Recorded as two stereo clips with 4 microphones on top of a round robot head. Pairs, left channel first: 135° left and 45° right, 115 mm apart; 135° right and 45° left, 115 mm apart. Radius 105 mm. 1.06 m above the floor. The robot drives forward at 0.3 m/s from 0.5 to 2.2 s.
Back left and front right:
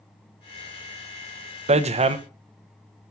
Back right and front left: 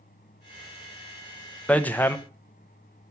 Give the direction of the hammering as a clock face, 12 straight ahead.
2 o'clock.